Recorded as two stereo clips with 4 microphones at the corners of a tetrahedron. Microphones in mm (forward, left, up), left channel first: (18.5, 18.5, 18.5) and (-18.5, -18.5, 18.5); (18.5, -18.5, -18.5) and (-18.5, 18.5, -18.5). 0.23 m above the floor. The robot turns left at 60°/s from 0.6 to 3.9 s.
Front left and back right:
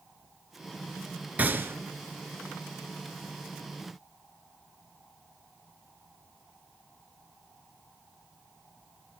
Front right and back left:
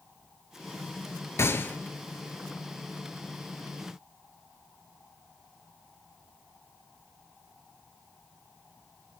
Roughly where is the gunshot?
Right.